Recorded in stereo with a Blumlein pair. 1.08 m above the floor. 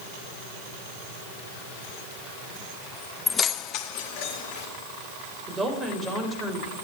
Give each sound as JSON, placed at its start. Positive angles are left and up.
{"t": 3.3, "sound": "keys jangling", "azimuth_deg": 10, "distance_m": 0.6}
{"t": 5.5, "sound": "a woman speaking", "azimuth_deg": -20, "distance_m": 4.5}